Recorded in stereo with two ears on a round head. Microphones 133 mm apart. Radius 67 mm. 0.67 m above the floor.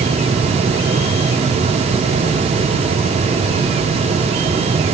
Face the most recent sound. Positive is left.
No sound to turn to.